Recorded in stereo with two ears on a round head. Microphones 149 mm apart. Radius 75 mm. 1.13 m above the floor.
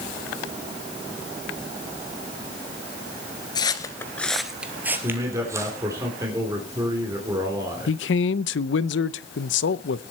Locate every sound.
3.5 s footsteps: 25° left (ahead or behind), 1.3 m; by 5.8 s 20° right (ahead or behind), 3 m
5.0 s a man speaking: 20° right (ahead or behind), 3 m
7.9 s a man speaking: 75° left (ahead or behind), 0.6 m